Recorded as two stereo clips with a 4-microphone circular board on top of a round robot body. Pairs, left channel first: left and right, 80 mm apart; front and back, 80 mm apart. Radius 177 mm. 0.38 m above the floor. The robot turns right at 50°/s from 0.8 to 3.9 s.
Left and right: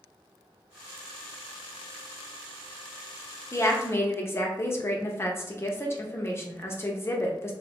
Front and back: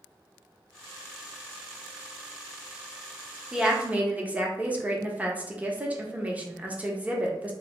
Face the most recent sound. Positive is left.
turn(degrees=120)